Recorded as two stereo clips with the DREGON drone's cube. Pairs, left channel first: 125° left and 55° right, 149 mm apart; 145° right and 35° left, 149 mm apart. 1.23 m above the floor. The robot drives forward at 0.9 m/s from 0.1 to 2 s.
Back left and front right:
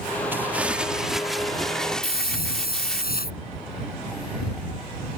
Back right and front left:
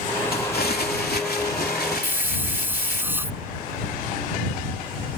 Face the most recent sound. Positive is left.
turn(degrees=110)